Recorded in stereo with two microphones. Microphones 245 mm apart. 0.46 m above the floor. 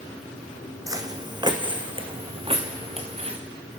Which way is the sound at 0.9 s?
15° right (ahead or behind).